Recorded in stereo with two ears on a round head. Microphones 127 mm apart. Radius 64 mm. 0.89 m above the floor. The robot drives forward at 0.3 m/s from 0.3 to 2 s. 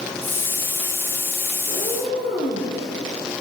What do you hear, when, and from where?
1.7 s a cat meowing: 35° left (ahead or behind), 6 m